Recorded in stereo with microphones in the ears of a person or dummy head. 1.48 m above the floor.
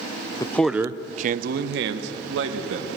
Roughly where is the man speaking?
Left.